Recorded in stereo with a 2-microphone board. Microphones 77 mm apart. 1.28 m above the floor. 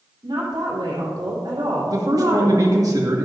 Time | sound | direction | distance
0.2 | a woman speaking | 75° right (ahead or behind) | 3 m
1.9 | a man speaking | 55° right (ahead or behind) | 1.8 m